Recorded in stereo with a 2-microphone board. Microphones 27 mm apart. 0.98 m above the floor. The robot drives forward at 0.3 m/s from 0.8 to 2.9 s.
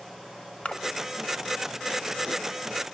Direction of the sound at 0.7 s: 50° left (ahead or behind).